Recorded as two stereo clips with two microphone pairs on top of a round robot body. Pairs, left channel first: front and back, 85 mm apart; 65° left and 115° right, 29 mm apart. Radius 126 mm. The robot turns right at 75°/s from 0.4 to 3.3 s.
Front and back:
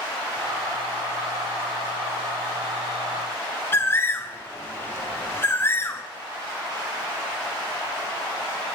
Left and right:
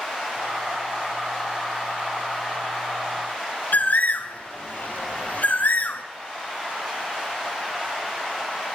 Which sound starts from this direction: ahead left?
A bird, at 3.7 s.